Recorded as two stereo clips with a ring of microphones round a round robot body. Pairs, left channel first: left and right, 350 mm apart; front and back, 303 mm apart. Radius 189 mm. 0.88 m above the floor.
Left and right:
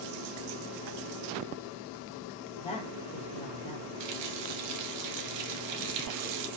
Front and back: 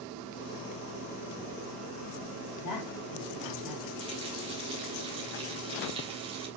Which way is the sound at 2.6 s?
15° left.